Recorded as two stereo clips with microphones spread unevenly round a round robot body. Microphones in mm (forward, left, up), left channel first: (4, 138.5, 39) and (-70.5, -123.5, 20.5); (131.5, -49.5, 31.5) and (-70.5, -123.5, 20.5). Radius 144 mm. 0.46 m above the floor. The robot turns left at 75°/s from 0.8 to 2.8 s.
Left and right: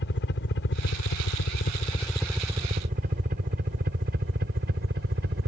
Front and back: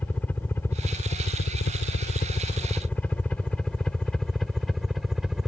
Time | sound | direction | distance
0.0 | a helicopter | 105° left | ?